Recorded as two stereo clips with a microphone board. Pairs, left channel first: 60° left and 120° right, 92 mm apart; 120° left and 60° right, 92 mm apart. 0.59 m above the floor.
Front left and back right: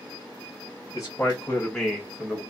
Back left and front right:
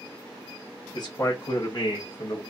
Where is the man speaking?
105° left, 0.9 m; by 2.4 s 160° left, 1.0 m.